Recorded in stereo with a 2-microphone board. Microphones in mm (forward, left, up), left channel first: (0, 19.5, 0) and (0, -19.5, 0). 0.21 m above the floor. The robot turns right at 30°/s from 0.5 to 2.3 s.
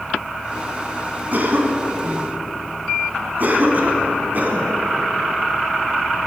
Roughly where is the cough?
Right.